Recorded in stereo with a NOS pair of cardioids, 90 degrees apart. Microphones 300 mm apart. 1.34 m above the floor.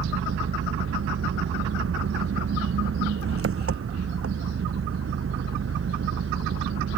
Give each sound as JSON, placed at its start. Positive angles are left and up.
{"t": 0.0, "sound": "an engine running", "azimuth_deg": -45}